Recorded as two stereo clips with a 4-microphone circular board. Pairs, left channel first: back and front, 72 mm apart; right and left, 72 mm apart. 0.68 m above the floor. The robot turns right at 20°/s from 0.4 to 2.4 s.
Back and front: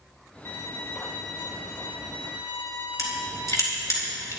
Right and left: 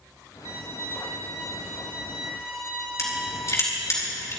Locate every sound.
0.5 s a violin: 125° left, 2.5 m; by 4.0 s 165° left, 2.5 m
3.0 s crushing: 135° right, 4.5 m